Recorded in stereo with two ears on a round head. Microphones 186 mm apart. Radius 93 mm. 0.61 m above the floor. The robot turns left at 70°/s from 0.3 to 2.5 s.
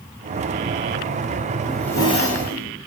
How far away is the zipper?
About 4.5 m.